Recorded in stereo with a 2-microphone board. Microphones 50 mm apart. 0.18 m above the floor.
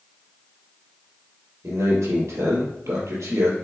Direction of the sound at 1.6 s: 65° right (ahead or behind).